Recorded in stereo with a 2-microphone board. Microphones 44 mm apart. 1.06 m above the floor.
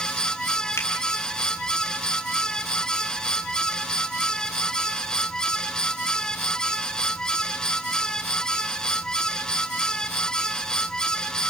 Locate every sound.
0.8 s a finger snap: 85° left, 4.5 m